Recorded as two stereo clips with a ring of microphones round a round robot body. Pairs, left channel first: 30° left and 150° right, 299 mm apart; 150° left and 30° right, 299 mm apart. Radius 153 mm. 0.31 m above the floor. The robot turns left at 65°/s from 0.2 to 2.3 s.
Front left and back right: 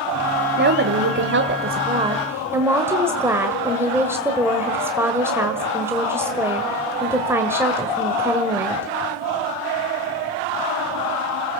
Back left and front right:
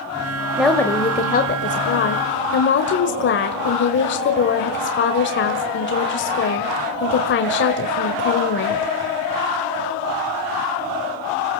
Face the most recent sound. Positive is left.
turn(degrees=135)